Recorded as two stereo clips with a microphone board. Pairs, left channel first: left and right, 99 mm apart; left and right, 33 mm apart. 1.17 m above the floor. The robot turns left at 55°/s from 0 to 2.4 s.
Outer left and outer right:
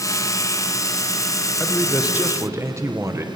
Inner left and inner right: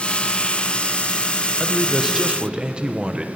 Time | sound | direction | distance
1.6 | a man speaking | 5° left | 0.9 m